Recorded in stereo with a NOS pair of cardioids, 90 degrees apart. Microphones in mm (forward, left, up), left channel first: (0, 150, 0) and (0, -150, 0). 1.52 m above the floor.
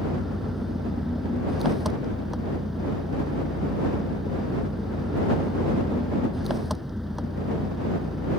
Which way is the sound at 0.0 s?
Straight ahead.